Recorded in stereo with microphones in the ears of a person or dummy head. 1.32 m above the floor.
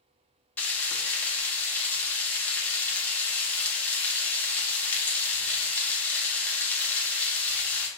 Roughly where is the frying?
Centre.